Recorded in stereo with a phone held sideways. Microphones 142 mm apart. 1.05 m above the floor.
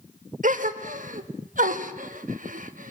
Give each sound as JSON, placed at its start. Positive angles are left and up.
{"t": 0.4, "sound": "a gasp", "side_deg": -70, "distance_m": 1.3}